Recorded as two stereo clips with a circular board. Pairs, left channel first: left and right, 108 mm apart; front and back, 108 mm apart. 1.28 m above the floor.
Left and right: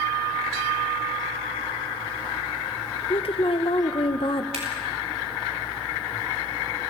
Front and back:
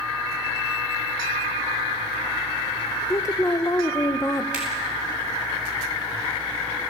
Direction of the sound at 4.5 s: 100° right.